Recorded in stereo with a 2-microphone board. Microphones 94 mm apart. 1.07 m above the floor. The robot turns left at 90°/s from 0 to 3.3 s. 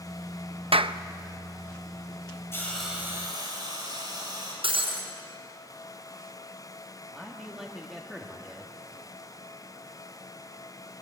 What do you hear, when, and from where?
0.7 s a clap: 75° right (ahead or behind), 0.6 m; by 1.0 s 55° right (ahead or behind), 0.6 m
2.5 s a hiss: 30° left, 6.5 m; by 4.5 s 45° right, 6.5 m
4.6 s breaking glass: 75° right (ahead or behind), 5.5 m
7.1 s a man speaking: centre (ahead or behind), 1.9 m